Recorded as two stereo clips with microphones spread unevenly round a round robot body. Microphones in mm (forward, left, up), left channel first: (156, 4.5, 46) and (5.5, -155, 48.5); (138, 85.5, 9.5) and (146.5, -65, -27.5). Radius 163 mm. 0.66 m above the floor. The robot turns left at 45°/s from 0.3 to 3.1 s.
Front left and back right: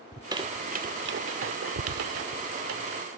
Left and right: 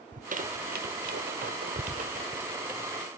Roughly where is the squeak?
Ahead right.